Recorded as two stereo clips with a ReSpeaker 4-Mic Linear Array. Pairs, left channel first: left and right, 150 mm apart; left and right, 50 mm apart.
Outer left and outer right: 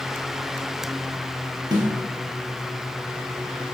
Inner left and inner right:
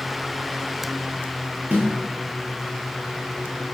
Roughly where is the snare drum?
Right.